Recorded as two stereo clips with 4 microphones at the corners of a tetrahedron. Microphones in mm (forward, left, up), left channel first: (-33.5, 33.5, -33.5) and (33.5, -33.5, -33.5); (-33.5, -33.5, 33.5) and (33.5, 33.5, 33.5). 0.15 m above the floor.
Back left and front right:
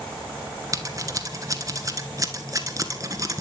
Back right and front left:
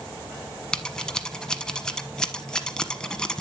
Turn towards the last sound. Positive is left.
turn(degrees=-60)